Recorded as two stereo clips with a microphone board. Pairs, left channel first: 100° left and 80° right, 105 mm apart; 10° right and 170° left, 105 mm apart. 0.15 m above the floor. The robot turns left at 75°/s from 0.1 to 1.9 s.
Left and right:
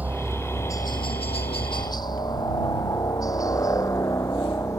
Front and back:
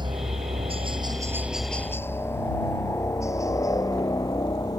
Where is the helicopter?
150° right; by 4.8 s 40° left.